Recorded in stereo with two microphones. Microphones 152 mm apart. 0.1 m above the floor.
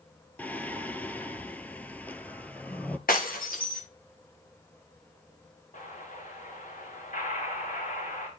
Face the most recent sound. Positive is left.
turn(degrees=60)  # may be behind; listen again after turning